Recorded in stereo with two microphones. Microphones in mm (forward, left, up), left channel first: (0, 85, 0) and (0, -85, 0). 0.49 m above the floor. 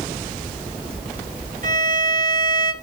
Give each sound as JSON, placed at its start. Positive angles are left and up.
{"t": 1.6, "sound": "a violin", "side_deg": -55, "distance_m": 2.0}